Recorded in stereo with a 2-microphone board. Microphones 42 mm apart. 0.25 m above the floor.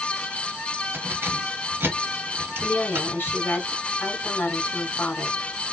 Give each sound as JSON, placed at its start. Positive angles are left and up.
{"t": 0.9, "sound": "keys jangling", "side_deg": -65, "distance_m": 2.5}
{"t": 2.6, "sound": "a woman speaking", "side_deg": 55, "distance_m": 2.5}